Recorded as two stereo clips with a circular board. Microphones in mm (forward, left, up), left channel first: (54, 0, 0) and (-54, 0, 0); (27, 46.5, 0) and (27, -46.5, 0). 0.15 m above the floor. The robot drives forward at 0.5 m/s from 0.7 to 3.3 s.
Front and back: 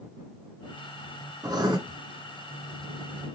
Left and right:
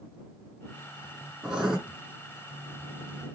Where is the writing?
170° right, 1.6 m.